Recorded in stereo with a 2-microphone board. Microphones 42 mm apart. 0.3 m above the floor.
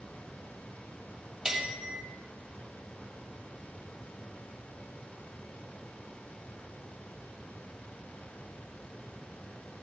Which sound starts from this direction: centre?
A bell, at 1.4 s.